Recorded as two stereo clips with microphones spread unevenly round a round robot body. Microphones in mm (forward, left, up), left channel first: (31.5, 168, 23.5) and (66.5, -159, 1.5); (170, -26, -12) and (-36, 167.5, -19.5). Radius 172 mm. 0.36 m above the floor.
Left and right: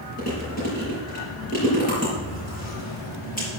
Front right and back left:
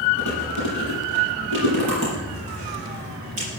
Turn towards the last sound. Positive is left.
turn(degrees=165)